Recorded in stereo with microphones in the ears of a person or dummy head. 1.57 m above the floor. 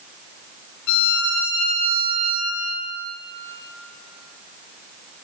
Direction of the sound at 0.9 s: 70° left (ahead or behind).